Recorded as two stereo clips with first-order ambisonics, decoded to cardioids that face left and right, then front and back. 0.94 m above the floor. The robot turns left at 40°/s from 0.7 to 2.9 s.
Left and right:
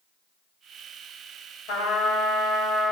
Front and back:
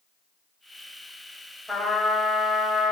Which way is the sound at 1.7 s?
90° left.